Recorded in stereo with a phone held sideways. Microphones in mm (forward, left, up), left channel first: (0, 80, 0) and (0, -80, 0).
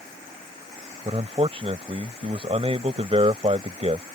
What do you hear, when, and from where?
1.1 s a man speaking: 40° right (ahead or behind)